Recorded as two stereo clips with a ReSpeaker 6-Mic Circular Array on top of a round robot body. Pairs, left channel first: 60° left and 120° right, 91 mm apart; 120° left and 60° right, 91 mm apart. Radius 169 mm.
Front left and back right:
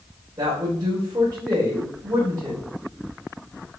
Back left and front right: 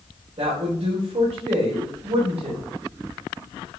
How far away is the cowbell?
No cowbell in this recording.